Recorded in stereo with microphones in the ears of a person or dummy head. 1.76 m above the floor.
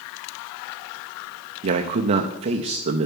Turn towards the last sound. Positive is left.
turn(degrees=-35)  # may be behind; listen again after turning